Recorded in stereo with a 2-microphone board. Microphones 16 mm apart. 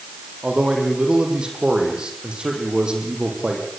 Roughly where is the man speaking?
Right.